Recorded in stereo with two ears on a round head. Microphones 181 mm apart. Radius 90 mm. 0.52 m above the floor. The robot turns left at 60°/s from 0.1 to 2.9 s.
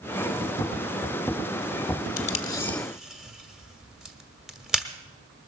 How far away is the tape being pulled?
About 1.1 m.